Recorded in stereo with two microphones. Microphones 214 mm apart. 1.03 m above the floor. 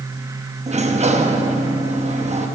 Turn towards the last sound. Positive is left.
turn(degrees=-30)  # may be behind; listen again after turning